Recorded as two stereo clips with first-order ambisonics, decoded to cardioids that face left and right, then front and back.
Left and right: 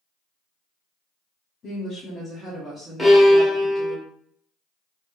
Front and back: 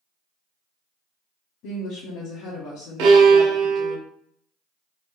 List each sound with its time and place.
1.6 s a woman speaking: 35° left, 0.8 m; by 4.0 s 30° right, 1.5 m
3.0 s a violin: straight behind, 0.9 m